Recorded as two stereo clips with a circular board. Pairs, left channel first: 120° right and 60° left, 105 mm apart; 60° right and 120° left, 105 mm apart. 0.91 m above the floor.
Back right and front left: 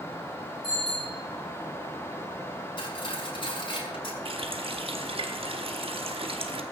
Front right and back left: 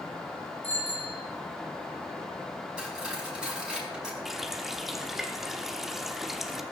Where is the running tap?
30° left, 1.2 m.